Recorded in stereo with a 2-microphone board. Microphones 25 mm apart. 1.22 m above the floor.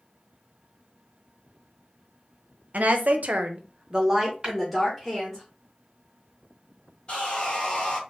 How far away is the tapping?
About 1.4 m.